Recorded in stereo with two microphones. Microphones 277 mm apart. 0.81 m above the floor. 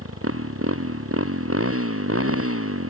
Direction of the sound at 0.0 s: 55° right (ahead or behind).